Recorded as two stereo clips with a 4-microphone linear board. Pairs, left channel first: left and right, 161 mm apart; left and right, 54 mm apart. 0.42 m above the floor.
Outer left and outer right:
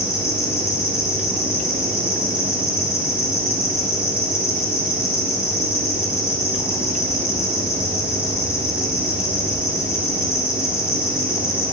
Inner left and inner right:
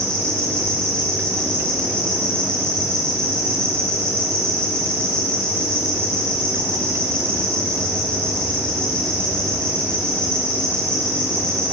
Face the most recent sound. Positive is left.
turn(degrees=15)  # may be behind; listen again after turning